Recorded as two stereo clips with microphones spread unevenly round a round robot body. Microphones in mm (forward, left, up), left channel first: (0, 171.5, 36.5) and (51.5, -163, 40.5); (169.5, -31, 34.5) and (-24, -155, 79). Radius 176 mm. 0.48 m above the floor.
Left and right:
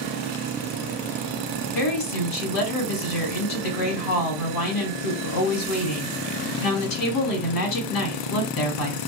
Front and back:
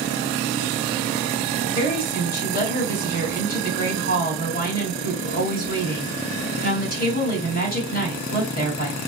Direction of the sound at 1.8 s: 80° left.